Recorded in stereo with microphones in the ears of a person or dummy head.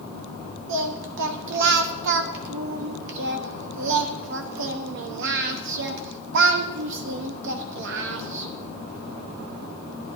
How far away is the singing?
About 1.0 m.